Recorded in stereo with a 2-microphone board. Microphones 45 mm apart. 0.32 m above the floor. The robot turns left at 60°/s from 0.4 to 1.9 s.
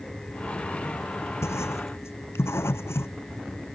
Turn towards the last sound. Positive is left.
turn(degrees=70)  # may be behind; listen again after turning